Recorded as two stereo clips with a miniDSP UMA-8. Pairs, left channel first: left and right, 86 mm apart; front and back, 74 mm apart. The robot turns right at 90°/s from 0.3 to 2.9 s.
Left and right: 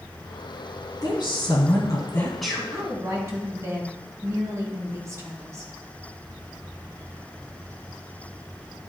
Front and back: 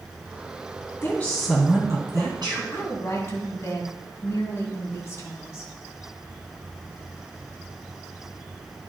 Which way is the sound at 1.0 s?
55° left.